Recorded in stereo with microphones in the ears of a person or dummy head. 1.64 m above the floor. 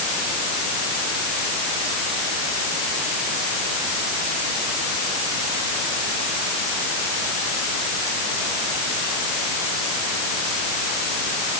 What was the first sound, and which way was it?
Only background noise.